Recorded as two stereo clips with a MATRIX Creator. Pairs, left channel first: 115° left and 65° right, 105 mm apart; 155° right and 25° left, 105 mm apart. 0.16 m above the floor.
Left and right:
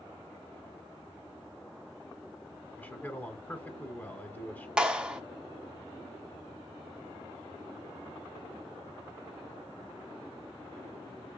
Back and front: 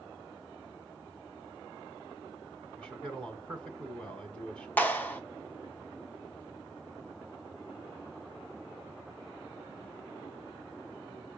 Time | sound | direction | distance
2.8 | a man speaking | 140° left | 1.4 m
4.8 | a clap | 130° right | 1.2 m